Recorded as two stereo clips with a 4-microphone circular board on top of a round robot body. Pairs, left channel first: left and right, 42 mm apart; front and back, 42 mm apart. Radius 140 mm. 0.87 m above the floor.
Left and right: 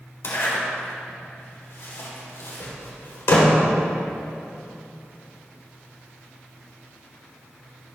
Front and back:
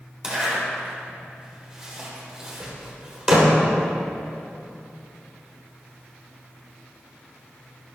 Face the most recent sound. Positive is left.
turn(degrees=105)